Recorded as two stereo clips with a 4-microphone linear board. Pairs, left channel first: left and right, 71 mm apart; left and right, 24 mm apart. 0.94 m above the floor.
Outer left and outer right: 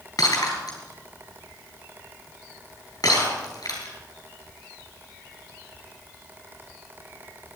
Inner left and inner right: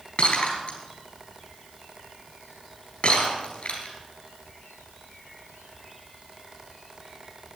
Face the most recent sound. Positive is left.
turn(degrees=65)  # may be behind; listen again after turning